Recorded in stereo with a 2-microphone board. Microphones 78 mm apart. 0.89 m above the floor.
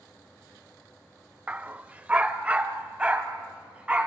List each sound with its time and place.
1.5 s a dog barking: 20° right (ahead or behind), 0.6 m; by 4.1 s 15° right (ahead or behind), 2.5 m